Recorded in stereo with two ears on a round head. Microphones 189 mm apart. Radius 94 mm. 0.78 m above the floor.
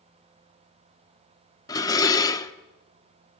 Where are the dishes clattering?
15° left (ahead or behind), 1.0 m.